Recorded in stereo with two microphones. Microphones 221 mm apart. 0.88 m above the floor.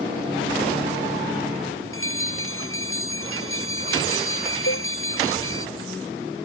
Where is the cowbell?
85° left.